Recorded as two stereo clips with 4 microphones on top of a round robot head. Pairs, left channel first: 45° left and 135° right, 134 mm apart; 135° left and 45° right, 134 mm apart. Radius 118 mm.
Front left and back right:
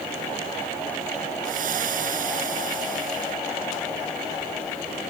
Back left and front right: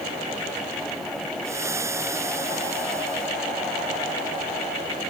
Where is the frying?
115° right.